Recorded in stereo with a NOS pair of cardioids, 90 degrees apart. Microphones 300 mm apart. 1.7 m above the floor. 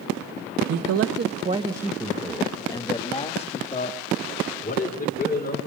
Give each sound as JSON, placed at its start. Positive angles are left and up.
{"t": 0.7, "sound": "a man speaking", "azimuth_deg": -65, "distance_m": 1.6}